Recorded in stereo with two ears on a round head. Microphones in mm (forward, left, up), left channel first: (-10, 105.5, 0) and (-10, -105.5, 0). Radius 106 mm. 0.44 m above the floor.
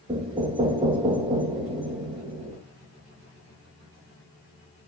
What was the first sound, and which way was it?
Knocking, 25° right (ahead or behind).